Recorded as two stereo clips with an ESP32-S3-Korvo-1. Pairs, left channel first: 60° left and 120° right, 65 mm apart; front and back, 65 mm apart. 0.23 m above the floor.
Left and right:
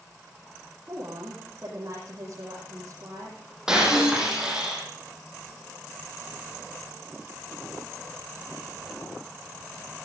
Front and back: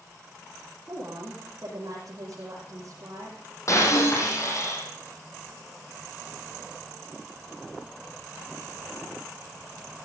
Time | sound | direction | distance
0.9 | a woman speaking | 160° right | 6 m
3.7 | breaking glass | 40° right | 5.5 m